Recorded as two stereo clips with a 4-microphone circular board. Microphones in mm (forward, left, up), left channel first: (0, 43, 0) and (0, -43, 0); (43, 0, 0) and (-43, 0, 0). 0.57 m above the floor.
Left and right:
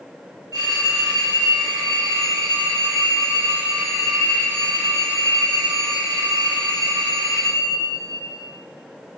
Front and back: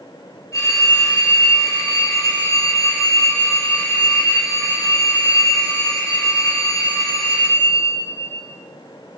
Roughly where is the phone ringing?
Ahead right.